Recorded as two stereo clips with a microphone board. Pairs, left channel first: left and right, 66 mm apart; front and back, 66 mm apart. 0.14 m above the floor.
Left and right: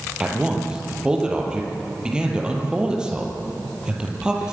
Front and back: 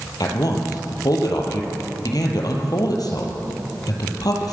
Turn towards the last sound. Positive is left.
turn(degrees=-15)